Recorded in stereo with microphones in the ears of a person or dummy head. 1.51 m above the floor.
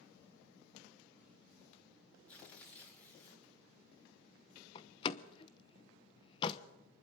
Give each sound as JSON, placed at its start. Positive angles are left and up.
{"t": 2.3, "sound": "tearing paper", "side_deg": 10, "distance_m": 4.0}
{"t": 4.8, "sound": "a door slam", "side_deg": 35, "distance_m": 1.0}